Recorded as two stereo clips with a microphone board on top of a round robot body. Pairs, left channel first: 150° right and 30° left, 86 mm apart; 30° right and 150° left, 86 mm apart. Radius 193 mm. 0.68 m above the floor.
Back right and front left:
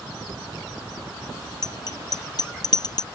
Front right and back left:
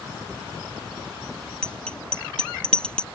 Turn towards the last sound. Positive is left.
turn(degrees=-110)